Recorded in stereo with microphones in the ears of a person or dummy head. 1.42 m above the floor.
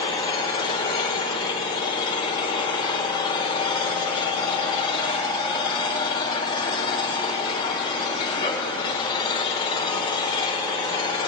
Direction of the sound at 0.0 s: 25° left (ahead or behind).